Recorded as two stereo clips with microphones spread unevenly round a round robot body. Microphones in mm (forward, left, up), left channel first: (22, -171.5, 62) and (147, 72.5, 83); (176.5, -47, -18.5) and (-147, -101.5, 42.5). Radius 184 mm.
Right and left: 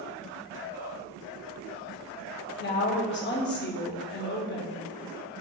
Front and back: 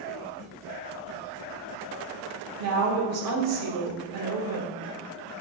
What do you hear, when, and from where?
2.6 s a woman speaking: 135° right, 1.0 m